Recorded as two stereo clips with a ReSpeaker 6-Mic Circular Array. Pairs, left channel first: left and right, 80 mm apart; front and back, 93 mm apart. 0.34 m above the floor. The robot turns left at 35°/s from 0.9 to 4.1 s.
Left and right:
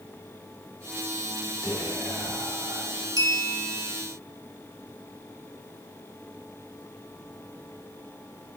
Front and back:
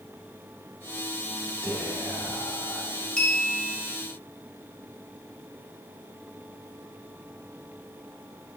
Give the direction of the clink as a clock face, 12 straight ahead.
3 o'clock.